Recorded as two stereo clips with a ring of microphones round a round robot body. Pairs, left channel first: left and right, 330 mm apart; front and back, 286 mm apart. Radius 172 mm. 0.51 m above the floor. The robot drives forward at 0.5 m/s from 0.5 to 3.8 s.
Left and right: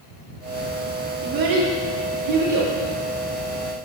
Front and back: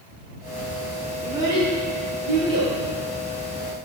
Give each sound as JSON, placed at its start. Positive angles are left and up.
{"t": 1.2, "sound": "a child speaking", "azimuth_deg": -95, "distance_m": 0.9}